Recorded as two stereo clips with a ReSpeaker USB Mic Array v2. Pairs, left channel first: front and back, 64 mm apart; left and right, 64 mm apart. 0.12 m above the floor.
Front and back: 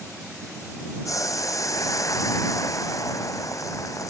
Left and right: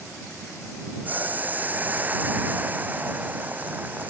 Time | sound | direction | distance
1.1 | boiling | 30° right | ?